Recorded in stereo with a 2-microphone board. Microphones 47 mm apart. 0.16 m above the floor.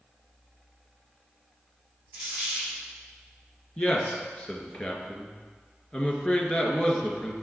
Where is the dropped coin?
50° right (ahead or behind), 4 m.